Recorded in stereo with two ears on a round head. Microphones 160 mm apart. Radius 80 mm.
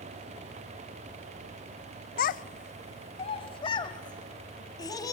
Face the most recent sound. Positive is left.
turn(degrees=20)  # may be behind; listen again after turning